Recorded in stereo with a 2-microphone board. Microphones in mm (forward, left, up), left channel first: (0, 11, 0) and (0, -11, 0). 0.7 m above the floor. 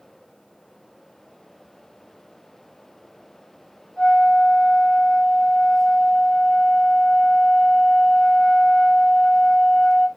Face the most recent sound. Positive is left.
turn(degrees=50)  # may be behind; listen again after turning